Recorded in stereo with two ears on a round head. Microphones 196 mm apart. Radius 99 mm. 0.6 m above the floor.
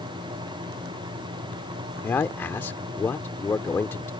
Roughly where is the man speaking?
Centre.